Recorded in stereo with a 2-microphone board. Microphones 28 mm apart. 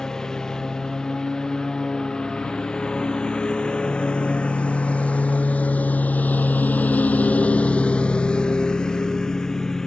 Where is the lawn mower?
20° left (ahead or behind).